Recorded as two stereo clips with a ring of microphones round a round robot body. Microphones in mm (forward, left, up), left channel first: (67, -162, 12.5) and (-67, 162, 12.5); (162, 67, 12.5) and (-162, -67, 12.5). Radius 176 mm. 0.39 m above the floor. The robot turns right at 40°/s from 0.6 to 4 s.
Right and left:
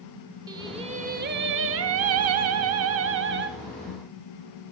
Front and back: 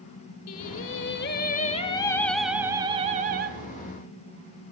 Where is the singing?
40° left, 0.8 m; by 3.5 s 155° left, 0.8 m.